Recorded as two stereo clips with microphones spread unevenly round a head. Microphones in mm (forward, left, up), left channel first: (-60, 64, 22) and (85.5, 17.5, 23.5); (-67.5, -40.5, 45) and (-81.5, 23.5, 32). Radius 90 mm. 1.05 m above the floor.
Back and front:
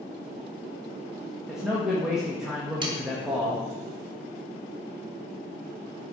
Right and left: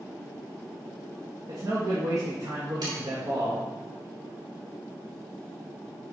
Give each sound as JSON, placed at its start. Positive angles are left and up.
{"t": 1.5, "sound": "a man speaking", "azimuth_deg": 70, "distance_m": 1.4}
{"t": 2.8, "sound": "sawing", "azimuth_deg": 40, "distance_m": 1.5}